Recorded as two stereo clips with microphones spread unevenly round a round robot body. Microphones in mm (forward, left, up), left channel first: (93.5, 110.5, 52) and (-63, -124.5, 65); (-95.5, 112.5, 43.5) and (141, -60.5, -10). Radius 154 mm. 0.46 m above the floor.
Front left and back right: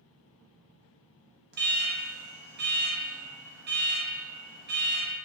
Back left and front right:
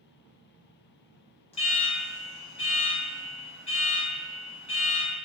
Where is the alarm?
145° right, 0.6 m.